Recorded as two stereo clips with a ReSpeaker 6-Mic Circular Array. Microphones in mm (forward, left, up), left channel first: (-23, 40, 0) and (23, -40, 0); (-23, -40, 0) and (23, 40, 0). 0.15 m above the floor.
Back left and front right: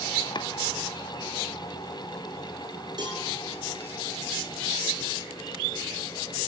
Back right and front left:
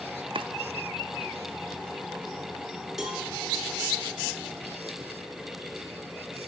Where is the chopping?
85° left, 0.5 m.